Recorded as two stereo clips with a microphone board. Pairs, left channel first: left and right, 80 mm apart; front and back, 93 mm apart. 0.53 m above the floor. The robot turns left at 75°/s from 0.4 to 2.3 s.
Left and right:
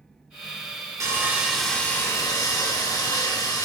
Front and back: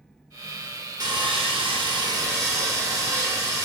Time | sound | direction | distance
1.0 | sawing | 135° right | 0.7 m